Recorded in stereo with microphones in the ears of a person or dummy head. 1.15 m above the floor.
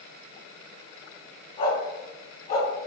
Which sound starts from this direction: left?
A dog barking, at 1.6 s.